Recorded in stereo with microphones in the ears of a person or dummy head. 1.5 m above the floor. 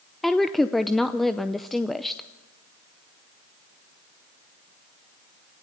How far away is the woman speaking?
About 0.6 m.